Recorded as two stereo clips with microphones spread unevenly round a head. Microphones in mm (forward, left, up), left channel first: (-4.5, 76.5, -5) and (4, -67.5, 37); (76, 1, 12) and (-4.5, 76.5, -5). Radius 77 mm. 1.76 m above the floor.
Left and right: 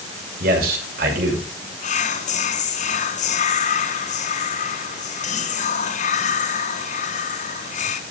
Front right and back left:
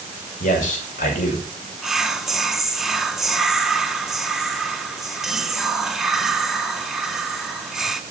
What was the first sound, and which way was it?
A man speaking, 60° right.